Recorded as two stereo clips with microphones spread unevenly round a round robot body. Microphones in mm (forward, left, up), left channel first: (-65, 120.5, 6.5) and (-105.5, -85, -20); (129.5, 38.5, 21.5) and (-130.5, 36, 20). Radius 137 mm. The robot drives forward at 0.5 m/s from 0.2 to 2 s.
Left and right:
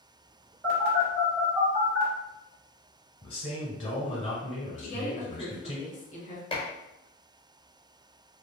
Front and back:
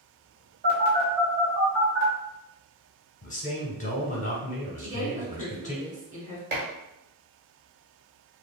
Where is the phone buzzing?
135° right, 1.4 m; by 2.1 s 160° right, 1.8 m.